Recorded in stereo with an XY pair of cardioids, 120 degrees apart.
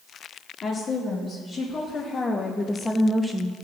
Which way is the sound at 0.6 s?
45° left.